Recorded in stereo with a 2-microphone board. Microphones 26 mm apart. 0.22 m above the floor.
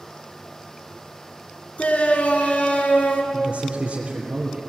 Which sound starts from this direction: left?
A shout, at 1.8 s.